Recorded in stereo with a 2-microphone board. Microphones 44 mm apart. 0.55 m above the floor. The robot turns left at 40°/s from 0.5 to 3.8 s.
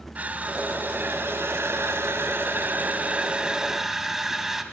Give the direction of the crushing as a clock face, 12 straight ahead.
1 o'clock.